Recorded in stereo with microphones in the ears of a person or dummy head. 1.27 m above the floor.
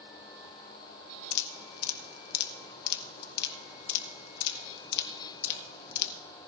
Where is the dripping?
60° left (ahead or behind), 0.9 m.